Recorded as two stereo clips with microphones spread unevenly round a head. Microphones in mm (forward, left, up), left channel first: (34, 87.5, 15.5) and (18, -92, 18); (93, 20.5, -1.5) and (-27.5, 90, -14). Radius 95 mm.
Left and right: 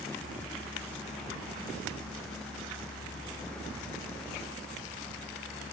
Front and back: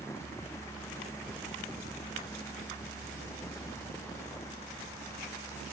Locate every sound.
Only background noise.